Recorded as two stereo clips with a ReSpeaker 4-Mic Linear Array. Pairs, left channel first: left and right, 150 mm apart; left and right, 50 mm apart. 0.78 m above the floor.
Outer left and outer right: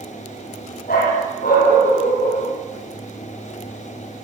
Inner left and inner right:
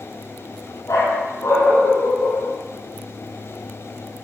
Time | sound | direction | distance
0.9 | a dog barking | 75° left (ahead or behind) | 8.5 m